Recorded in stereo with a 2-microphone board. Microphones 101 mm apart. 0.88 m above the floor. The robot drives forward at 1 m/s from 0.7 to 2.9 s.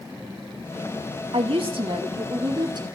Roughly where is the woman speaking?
Right.